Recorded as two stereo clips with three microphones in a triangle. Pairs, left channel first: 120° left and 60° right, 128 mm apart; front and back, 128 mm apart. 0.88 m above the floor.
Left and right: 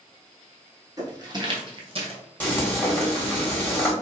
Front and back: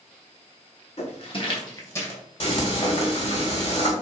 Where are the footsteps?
5° right, 1.3 m; by 2.2 s 70° right, 1.2 m.